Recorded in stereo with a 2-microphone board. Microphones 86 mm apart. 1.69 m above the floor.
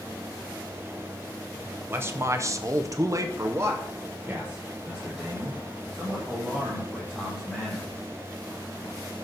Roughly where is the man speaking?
Right.